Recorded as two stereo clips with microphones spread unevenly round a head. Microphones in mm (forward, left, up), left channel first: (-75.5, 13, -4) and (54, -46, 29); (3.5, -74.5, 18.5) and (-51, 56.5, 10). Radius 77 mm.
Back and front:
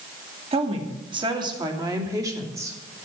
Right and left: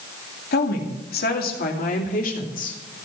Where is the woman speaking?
75° right, 2.5 m; by 2.8 s 100° right, 3 m.